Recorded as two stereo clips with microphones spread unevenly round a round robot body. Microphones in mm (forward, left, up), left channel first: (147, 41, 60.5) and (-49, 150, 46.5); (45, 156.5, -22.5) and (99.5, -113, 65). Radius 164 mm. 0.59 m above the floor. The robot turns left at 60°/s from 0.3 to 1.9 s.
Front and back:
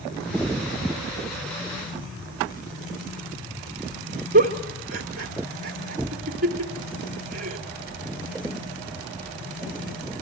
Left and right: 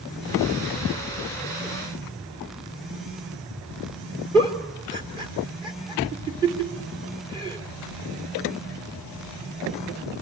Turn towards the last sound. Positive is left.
turn(degrees=-160)